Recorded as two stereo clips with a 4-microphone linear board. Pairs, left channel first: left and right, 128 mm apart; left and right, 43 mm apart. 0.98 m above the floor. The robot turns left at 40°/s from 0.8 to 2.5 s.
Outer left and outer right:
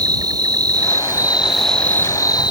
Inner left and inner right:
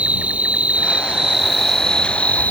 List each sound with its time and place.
0.0 s an insect: 150° right; by 2.5 s 145° left